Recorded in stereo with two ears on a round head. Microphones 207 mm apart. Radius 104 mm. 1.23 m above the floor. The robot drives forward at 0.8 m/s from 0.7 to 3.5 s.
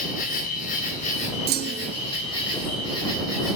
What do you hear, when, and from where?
0.0 s an insect: 40° left (ahead or behind), 2 m; by 3.6 s 20° left (ahead or behind), 4 m
1.5 s a clunk: 45° right (ahead or behind), 0.6 m; by 1.9 s 40° right (ahead or behind), 0.7 m